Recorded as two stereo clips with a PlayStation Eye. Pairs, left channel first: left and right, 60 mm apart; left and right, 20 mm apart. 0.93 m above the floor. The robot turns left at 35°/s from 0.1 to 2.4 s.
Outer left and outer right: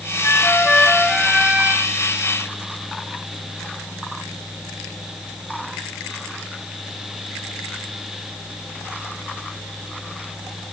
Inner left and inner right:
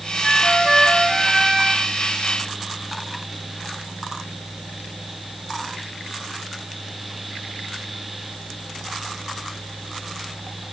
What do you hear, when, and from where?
0.2 s a flute: 35° left; by 1.9 s 25° right